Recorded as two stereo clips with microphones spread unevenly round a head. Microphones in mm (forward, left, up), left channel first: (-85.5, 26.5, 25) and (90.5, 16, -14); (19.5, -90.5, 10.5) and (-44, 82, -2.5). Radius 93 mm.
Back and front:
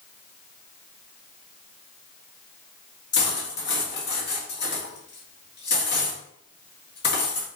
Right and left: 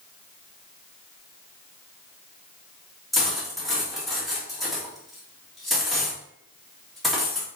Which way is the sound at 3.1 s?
160° right.